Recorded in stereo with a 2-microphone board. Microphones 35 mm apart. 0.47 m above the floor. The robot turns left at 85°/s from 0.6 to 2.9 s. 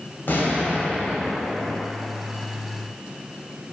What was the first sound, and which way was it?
An explosion, 110° left.